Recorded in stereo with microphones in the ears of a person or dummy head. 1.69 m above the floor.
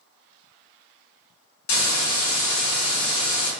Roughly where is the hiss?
Left.